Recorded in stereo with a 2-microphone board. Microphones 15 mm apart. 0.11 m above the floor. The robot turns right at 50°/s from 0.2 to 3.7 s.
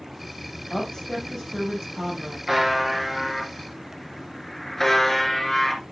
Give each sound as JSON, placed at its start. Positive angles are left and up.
{"t": 0.7, "sound": "a woman speaking", "azimuth_deg": 165, "distance_m": 5.0}
{"t": 2.5, "sound": "a buzzer", "azimuth_deg": -30, "distance_m": 1.8}